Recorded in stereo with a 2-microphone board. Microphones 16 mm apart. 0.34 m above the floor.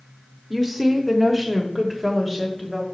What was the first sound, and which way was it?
A woman speaking, 15° right (ahead or behind).